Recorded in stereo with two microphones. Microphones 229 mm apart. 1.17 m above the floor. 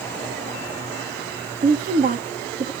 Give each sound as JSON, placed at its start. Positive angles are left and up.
{"t": 1.6, "sound": "a woman speaking", "side_deg": -40, "distance_m": 2.5}